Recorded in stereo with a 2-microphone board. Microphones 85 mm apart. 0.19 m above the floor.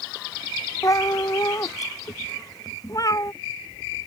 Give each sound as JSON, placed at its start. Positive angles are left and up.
{"t": 0.8, "sound": "a cat meowing", "side_deg": 45}